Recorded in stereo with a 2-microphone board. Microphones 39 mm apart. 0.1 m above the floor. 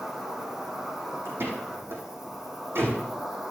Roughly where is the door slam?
Right.